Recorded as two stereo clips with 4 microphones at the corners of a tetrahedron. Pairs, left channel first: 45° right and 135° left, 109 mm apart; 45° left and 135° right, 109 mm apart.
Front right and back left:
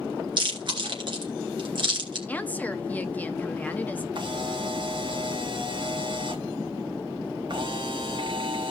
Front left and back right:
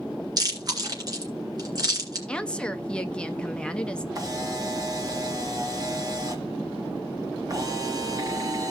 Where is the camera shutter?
175° left, 1.6 m.